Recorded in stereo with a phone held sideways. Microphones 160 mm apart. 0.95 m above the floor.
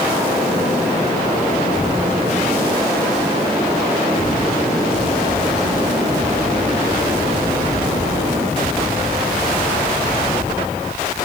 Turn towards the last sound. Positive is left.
No sound to turn to.